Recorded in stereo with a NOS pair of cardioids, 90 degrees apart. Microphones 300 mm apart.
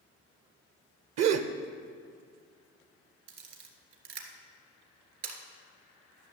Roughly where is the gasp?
Ahead right.